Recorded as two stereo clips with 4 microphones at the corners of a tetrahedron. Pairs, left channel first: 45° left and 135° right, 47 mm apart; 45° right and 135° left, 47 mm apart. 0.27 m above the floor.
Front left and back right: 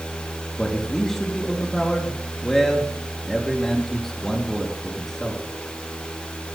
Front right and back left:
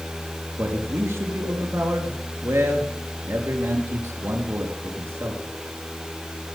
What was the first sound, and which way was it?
A man speaking, 125° left.